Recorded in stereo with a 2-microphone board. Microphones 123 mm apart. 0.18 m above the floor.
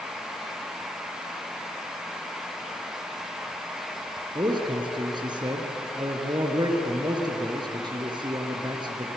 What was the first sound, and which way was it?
A man speaking, 35° right (ahead or behind).